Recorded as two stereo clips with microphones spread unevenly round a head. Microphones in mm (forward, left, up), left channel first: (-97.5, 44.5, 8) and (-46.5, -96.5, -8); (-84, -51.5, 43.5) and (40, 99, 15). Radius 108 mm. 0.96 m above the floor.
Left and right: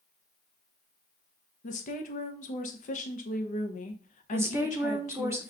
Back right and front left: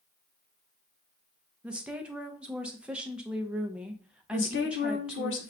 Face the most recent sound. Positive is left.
turn(degrees=-135)